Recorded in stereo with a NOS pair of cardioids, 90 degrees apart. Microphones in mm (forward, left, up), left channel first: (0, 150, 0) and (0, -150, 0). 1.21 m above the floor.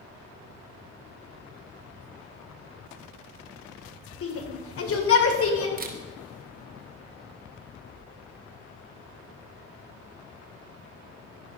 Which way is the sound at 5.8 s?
30° right.